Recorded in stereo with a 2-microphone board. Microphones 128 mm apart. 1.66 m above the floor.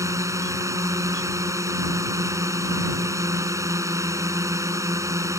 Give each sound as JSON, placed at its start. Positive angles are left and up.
{"t": 0.0, "sound": "a drone", "side_deg": -20}